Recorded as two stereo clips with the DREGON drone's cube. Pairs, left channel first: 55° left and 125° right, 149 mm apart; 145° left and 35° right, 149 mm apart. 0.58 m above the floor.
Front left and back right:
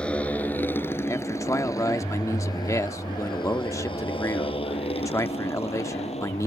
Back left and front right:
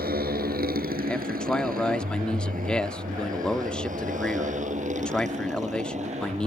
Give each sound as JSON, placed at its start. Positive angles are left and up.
{"t": 0.0, "sound": "a motorcycle", "azimuth_deg": -30}
{"t": 1.1, "sound": "a man speaking", "azimuth_deg": 75}